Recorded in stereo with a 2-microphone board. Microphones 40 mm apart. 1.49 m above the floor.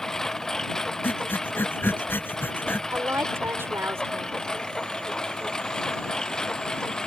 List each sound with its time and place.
0.0 s a lawn mower: 10° left (ahead or behind); by 7.1 s 15° left (ahead or behind)
1.0 s breathing: 60° left (ahead or behind)
2.9 s a woman speaking: 80° right